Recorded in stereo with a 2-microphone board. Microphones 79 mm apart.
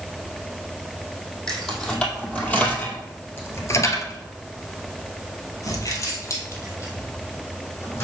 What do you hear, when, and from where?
1.5 s keys jangling: 5° left (ahead or behind), 2.5 m; by 8.1 s 30° left (ahead or behind), 3.5 m